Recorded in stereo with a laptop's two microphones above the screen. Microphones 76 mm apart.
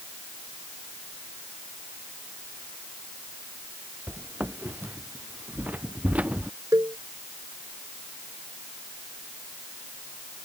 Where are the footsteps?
30° right (ahead or behind); by 6.5 s 20° right (ahead or behind).